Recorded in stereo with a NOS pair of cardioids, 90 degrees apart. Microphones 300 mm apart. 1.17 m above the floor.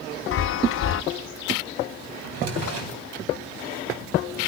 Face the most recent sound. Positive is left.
turn(degrees=-60)